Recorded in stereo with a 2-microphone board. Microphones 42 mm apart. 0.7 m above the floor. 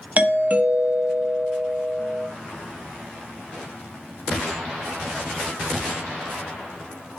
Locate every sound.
0.2 s a doorbell: 35° right (ahead or behind), 1.1 m